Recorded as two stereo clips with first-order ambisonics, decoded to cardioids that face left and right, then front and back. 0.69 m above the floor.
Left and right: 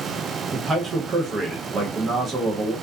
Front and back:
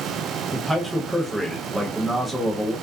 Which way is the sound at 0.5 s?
110° right.